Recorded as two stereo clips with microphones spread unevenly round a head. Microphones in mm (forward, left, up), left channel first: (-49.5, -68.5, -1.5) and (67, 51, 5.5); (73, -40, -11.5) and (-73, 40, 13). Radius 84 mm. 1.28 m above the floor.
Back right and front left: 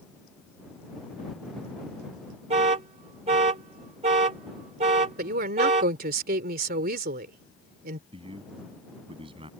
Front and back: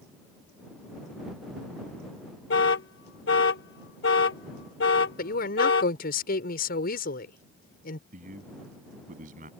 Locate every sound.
2.5 s an alarm: 5° right
5.2 s a woman speaking: 10° left
8.1 s a man speaking: 105° left